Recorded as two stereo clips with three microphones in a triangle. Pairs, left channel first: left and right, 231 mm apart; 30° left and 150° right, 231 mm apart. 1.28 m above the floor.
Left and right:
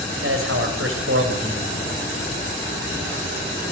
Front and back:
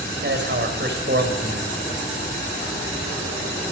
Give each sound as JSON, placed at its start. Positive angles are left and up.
{"t": 0.2, "sound": "a man speaking", "azimuth_deg": -110, "distance_m": 5.5}